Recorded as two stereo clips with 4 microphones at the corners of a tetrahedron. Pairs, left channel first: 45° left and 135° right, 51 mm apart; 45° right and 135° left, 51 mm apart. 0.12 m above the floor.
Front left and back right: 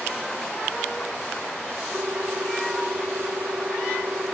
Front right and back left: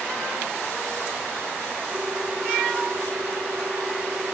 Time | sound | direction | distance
1.9 | a ringtone | 170° right | ?